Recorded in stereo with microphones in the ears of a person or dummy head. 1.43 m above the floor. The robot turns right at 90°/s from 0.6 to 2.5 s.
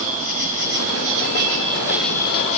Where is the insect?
130° right, 3.5 m; by 2.6 s 40° left, 3.5 m.